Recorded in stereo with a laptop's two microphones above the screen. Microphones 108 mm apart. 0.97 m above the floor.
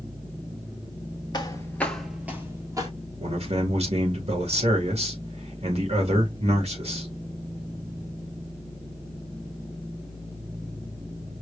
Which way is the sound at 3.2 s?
70° right (ahead or behind).